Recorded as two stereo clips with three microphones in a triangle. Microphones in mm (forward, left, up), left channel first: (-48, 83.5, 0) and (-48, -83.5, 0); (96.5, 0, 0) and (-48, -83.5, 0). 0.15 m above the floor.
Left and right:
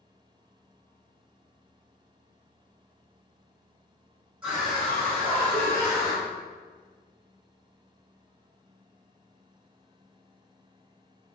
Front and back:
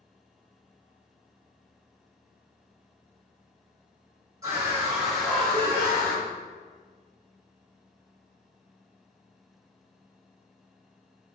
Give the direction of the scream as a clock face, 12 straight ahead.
6 o'clock.